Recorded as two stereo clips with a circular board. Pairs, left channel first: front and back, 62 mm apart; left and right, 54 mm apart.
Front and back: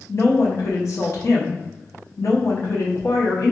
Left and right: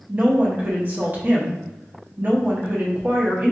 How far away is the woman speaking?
About 0.8 m.